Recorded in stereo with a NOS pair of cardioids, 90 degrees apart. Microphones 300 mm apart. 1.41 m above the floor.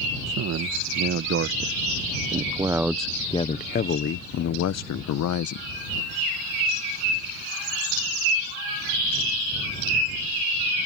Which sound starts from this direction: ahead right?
A man speaking, at 0.3 s.